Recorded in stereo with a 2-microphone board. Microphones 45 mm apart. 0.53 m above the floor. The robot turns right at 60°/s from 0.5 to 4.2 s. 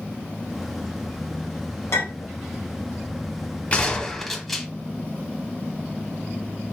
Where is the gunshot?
30° left (ahead or behind), 1.1 m; by 4.7 s 5° left (ahead or behind), 1.1 m.